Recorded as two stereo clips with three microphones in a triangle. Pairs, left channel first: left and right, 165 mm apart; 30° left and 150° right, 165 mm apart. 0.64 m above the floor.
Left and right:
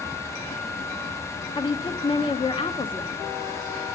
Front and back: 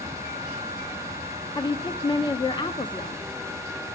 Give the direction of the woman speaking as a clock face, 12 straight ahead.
10 o'clock.